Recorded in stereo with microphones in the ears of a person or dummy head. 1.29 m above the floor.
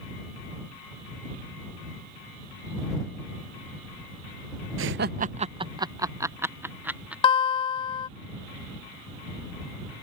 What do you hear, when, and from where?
4.8 s laughter: 65° right (ahead or behind); by 7.1 s 10° right (ahead or behind)
7.2 s a guitar: 30° left (ahead or behind)